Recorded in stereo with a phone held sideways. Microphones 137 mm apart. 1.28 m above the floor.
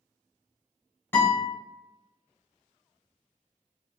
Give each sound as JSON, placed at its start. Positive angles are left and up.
{"t": 1.1, "sound": "a guitar", "side_deg": 15, "distance_m": 1.6}